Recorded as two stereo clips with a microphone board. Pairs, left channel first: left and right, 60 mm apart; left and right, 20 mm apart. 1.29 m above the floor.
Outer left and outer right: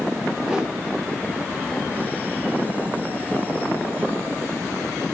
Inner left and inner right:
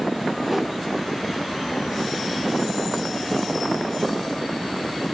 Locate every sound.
0.4 s a whoosh: 10° right (ahead or behind), 1.5 m